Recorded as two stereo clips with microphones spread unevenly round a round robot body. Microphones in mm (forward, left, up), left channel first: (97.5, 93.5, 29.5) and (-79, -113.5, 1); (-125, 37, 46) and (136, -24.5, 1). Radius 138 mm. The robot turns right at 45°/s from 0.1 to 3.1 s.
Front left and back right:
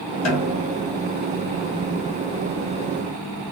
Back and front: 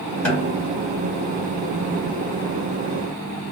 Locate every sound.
0.2 s a snare drum: 65° left, 1.1 m; by 0.8 s 90° left, 1.1 m